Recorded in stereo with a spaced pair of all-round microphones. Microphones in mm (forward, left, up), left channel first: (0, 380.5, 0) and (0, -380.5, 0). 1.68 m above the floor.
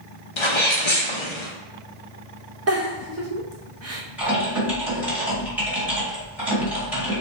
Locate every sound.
0.4 s a sneeze: 40° left (ahead or behind), 0.7 m
2.7 s a giggle: 20° right (ahead or behind), 0.7 m
4.2 s typing on a keyboard: centre (ahead or behind), 1.8 m